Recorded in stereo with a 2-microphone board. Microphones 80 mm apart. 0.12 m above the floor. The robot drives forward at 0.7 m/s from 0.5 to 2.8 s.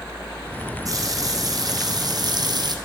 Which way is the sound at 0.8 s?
45° right (ahead or behind).